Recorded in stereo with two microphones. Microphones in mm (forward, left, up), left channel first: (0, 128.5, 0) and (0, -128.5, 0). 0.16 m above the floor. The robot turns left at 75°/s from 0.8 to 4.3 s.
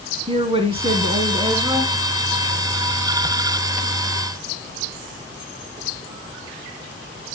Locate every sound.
0.3 s a woman speaking: 20° right (ahead or behind), 1.6 m; by 1.9 s 10° right (ahead or behind), 1.6 m